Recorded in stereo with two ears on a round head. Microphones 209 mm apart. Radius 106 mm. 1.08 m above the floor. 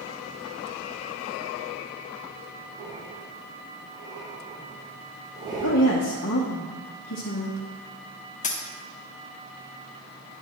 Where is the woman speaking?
55° left (ahead or behind), 0.9 m.